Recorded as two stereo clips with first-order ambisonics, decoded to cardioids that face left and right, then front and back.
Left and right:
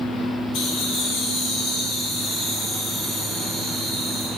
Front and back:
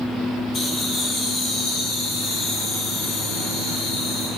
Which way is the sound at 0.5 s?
60° left.